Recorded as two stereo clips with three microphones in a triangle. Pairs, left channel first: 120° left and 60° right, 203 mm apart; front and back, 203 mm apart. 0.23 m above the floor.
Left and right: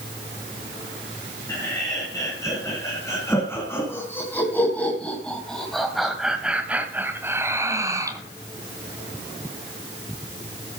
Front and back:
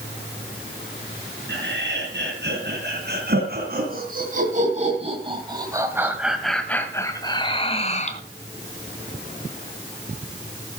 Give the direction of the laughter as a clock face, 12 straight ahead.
6 o'clock.